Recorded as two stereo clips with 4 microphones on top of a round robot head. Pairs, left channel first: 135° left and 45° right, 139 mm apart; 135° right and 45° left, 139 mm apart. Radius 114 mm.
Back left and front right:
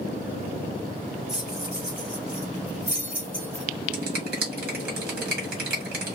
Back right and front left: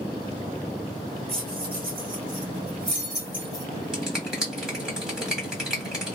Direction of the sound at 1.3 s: 40° left.